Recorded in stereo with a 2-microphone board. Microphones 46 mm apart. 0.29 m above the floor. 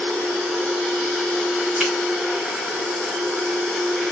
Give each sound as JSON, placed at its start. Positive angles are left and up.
{"t": 1.8, "sound": "a finger snap", "side_deg": -10, "distance_m": 1.8}